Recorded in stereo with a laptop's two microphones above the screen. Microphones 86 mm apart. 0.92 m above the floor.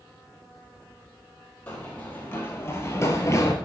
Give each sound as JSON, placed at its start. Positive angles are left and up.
{"t": 1.7, "sound": "running footsteps", "side_deg": 20, "distance_m": 1.5}